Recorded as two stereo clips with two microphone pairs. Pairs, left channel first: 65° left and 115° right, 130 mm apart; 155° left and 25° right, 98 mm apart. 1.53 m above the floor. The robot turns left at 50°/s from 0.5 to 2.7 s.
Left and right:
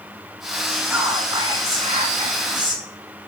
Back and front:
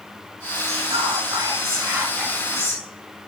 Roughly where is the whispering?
Ahead right.